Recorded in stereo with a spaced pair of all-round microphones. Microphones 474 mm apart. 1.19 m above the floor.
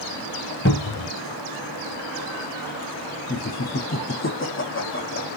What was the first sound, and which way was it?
A cupboard door, 25° left (ahead or behind).